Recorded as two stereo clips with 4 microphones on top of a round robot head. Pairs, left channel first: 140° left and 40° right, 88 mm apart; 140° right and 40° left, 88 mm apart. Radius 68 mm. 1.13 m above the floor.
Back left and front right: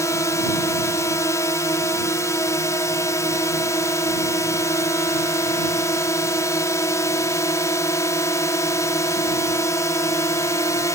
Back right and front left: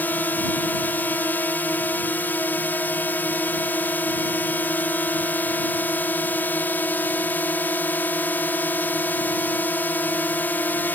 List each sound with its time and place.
0.0 s a drone: 165° left